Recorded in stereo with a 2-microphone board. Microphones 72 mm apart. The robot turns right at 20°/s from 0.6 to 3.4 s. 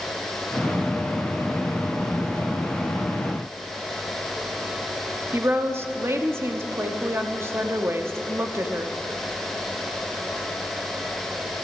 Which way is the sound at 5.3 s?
35° right (ahead or behind).